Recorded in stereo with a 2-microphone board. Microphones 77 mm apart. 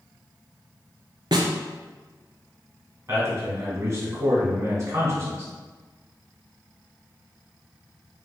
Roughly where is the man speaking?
Right.